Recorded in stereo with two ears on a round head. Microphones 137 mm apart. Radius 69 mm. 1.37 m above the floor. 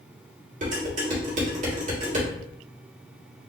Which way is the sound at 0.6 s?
50° right (ahead or behind).